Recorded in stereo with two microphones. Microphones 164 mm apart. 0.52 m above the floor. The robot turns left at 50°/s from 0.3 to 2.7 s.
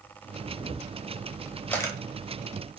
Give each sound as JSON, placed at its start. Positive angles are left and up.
{"t": 0.4, "sound": "a camera shutter", "side_deg": -50, "distance_m": 0.5}